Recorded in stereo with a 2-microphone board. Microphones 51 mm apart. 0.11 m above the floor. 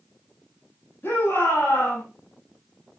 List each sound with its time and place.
1.0 s a shout: 45° left (ahead or behind), 8 m